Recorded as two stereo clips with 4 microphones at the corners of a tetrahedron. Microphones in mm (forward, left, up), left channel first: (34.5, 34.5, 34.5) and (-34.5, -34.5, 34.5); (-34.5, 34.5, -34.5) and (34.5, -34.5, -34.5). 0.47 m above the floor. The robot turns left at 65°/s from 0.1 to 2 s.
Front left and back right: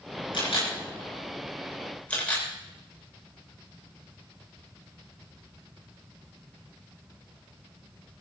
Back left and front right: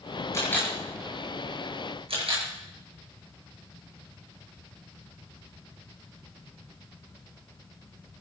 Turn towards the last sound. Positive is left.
turn(degrees=-30)